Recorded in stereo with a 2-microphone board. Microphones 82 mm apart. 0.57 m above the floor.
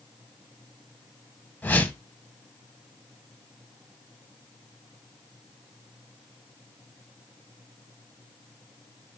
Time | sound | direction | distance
1.6 | a whoosh | 25° left (ahead or behind) | 0.7 m